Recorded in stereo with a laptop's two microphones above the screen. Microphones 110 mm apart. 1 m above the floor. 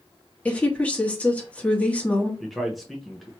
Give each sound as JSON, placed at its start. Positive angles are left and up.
{"t": 0.5, "sound": "a woman speaking", "side_deg": 15, "distance_m": 1.7}
{"t": 2.4, "sound": "a man speaking", "side_deg": 0, "distance_m": 0.9}